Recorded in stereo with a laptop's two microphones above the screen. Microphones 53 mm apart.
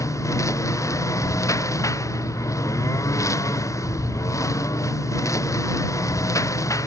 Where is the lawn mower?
75° left (ahead or behind).